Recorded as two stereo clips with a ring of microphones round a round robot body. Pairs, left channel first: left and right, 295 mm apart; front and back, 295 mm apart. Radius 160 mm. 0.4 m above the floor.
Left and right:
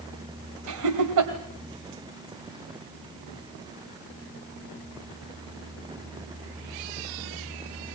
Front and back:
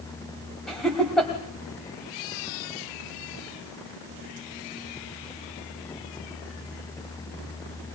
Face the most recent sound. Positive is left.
turn(degrees=-90)